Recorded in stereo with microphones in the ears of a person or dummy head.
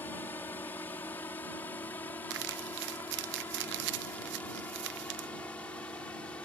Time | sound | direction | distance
0.0 | a drone | 10° left (ahead or behind) | ?
2.3 | crumpling | 55° right (ahead or behind) | ?